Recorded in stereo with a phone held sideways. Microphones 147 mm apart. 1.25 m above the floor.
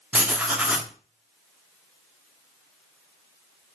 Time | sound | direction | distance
0.1 | writing | 10° right (ahead or behind) | 0.7 m